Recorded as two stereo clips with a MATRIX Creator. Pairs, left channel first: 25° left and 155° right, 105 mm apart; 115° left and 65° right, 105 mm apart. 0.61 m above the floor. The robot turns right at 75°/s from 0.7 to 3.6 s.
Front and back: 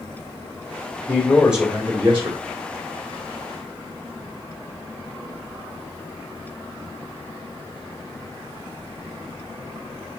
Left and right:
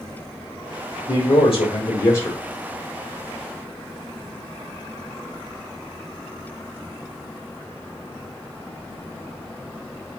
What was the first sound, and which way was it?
A man speaking, 85° left.